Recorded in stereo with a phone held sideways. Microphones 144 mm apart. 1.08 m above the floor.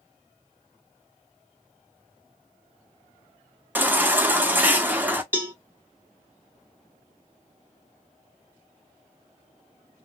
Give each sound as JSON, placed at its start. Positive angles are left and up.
{"t": 3.8, "sound": "a baby crying", "side_deg": -15, "distance_m": 0.7}
{"t": 5.3, "sound": "a cowbell", "side_deg": -15, "distance_m": 1.0}